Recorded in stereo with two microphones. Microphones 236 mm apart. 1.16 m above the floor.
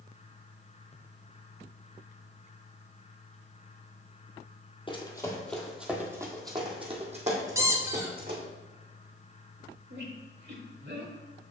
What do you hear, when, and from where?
4.9 s running footsteps: 20° left (ahead or behind), 1.5 m; by 8.4 s 45° right (ahead or behind), 3 m
7.5 s a squeak: 15° right (ahead or behind), 0.9 m
9.9 s a squeak: 50° right (ahead or behind), 1.3 m